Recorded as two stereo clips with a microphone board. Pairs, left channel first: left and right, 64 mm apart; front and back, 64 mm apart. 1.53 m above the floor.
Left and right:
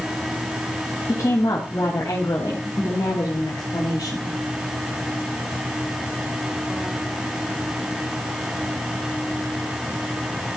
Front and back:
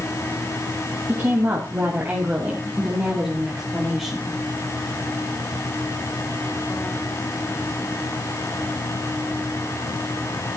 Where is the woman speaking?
125° left, 3 m; by 4.3 s 85° left, 3 m.